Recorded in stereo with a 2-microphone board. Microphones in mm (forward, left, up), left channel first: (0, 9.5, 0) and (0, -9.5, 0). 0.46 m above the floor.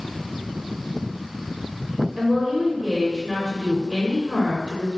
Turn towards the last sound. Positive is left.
turn(degrees=-20)  # may be behind; listen again after turning